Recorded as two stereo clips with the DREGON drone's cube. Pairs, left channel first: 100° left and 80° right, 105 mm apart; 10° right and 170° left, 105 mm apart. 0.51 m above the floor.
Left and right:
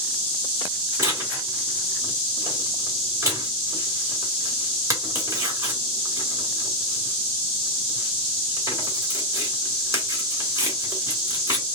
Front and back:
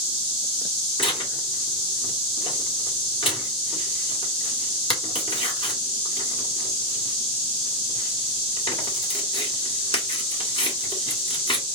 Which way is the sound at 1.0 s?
25° right.